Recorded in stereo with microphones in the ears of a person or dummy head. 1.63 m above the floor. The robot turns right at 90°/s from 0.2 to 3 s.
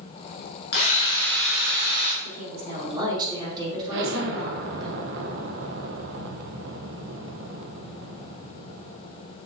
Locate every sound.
0.7 s a drill: 110° left, 1.9 m; by 2.1 s 120° right, 1.9 m
2.2 s a woman speaking: 95° right, 3.5 m; by 4.9 s 25° right, 3.5 m
3.9 s an explosion: 70° right (ahead or behind), 1.1 m